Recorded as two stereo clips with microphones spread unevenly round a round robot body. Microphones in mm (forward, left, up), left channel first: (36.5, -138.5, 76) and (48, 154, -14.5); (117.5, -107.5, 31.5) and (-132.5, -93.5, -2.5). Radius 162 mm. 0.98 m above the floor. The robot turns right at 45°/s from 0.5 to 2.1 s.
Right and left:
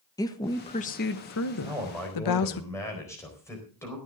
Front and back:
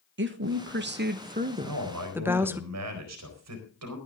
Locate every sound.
0.2 s a woman speaking: straight behind, 1.3 m; by 2.6 s 110° right, 1.3 m
1.6 s a man speaking: 165° left, 4 m; by 4.0 s 175° right, 4 m